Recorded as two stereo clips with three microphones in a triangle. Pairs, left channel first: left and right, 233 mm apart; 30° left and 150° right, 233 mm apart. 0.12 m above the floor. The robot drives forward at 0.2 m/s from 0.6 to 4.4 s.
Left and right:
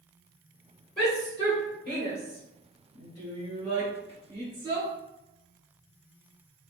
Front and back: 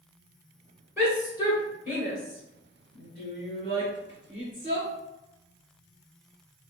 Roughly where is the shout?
Behind right.